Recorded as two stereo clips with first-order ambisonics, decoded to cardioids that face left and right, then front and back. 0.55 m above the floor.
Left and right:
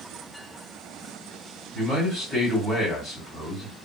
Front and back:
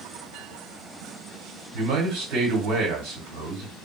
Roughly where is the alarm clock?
No alarm clock in this recording.